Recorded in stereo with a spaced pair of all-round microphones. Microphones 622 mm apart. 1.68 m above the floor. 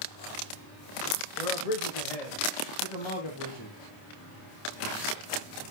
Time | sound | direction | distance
1.4 | a man speaking | 85° left | 2 m